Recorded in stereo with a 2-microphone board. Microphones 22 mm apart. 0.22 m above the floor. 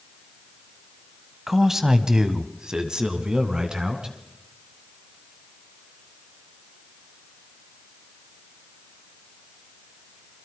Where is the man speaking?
10° right (ahead or behind), 1.4 m; by 4.2 s 40° right (ahead or behind), 2.5 m.